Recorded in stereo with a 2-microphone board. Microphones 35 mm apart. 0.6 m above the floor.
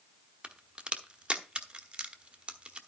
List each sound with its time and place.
0.4 s a crack: 25° right (ahead or behind), 1.0 m